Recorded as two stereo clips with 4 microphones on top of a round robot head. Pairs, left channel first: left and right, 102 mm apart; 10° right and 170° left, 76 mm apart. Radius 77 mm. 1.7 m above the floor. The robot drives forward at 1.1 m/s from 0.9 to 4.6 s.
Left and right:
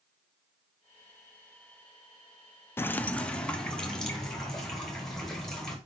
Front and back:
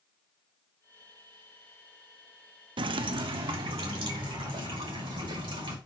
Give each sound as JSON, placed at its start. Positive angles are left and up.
{"t": 2.8, "sound": "dripping", "azimuth_deg": 160, "distance_m": 0.5}